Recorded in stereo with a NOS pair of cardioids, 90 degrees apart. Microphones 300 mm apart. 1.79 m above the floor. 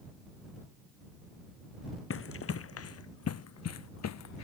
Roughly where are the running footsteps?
Ahead left.